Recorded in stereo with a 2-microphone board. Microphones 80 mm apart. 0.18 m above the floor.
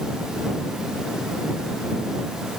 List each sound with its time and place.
Only background noise.